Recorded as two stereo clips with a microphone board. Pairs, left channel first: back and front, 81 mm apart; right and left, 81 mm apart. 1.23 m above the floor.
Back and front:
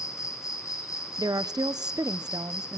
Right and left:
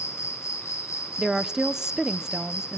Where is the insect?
140° right, 1.5 m.